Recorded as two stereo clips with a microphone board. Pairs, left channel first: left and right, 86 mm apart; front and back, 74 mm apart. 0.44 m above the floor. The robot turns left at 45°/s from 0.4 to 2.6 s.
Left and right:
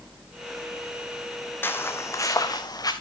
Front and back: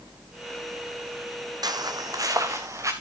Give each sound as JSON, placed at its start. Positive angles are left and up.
{"t": 1.6, "sound": "footsteps", "azimuth_deg": 155, "distance_m": 1.3}